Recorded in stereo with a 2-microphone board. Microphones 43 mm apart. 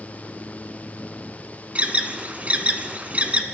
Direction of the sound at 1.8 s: 35° right (ahead or behind).